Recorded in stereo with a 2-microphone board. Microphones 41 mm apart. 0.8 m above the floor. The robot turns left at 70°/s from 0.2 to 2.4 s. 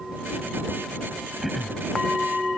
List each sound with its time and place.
1.4 s throat clearing: 10° right (ahead or behind); by 1.8 s 20° left (ahead or behind)